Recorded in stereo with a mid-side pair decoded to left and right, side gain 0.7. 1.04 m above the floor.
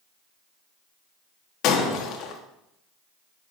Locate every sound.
1.6 s breaking glass: 55° left, 1.0 m